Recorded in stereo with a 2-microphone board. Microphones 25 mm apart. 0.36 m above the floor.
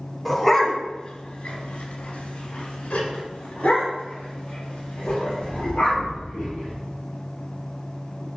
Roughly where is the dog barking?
Centre.